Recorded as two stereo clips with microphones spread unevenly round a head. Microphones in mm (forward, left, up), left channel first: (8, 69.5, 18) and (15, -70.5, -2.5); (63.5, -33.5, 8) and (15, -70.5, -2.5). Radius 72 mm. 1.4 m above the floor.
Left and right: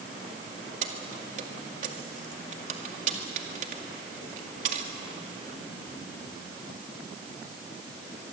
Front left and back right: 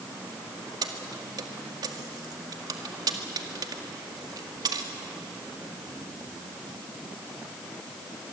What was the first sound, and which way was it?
Keys jangling, 130° right.